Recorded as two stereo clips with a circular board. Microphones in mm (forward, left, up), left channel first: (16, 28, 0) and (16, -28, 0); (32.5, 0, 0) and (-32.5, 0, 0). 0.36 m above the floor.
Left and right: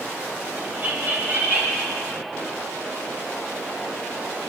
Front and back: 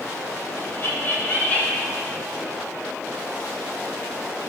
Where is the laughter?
35° right, 2.5 m; by 1.9 s 70° right, 2 m.